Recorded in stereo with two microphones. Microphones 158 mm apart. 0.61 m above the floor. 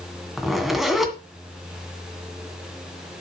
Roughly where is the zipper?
Centre.